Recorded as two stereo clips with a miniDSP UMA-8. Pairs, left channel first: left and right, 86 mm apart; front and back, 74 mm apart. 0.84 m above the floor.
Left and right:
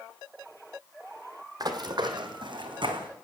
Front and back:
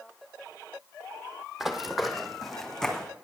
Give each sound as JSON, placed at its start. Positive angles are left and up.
{"t": 1.6, "sound": "running footsteps", "azimuth_deg": -95, "distance_m": 1.3}